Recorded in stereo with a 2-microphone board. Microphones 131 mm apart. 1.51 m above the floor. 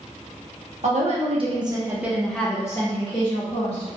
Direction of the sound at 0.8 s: 65° right (ahead or behind).